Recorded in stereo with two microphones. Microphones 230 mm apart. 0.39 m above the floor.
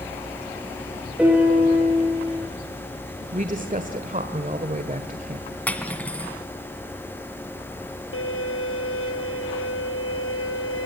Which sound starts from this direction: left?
A violin, at 8.1 s.